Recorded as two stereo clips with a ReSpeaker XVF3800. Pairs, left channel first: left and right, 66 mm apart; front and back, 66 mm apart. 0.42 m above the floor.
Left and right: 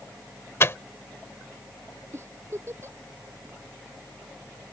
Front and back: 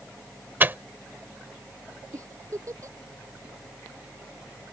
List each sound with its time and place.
0.6 s a microwave: 130° left
2.1 s a giggle: 140° right